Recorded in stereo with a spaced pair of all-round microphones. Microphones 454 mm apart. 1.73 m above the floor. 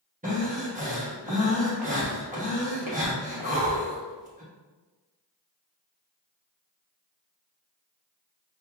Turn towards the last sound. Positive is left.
turn(degrees=-20)  # may be behind; listen again after turning